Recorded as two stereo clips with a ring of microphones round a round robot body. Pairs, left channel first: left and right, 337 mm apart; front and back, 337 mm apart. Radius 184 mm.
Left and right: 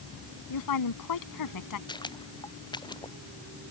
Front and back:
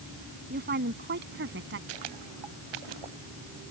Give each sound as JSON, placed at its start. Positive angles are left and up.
{"t": 0.5, "sound": "a woman speaking", "azimuth_deg": 115}
{"t": 1.9, "sound": "footsteps", "azimuth_deg": 165}